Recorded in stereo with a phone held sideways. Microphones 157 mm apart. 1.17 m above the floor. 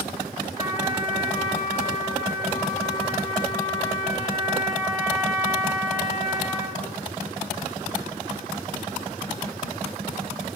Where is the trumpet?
30° right (ahead or behind), 4 m.